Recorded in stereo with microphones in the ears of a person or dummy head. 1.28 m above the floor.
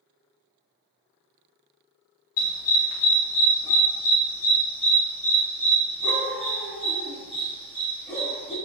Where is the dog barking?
45° left (ahead or behind), 1.4 m; by 8.5 s 10° right (ahead or behind), 3.5 m.